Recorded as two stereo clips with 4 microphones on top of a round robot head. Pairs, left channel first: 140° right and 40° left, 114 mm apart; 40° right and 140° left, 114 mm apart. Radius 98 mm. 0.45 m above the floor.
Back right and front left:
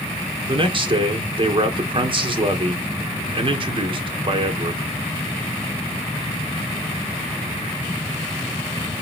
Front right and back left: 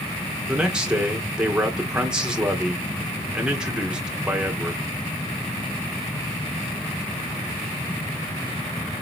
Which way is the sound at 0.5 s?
60° left.